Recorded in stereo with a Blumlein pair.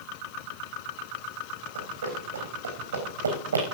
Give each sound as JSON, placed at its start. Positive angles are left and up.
{"t": 1.8, "sound": "running footsteps", "azimuth_deg": -70, "distance_m": 4.0}